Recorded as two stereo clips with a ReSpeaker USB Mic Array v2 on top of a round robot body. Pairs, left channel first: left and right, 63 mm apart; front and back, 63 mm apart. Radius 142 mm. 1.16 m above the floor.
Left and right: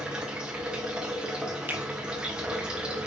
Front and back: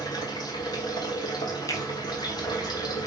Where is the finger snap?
30° right, 2.5 m.